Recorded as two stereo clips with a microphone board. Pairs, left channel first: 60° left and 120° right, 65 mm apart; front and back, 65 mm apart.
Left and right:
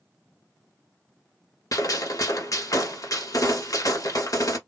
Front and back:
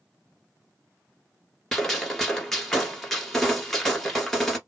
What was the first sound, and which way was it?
A gunshot, 85° left.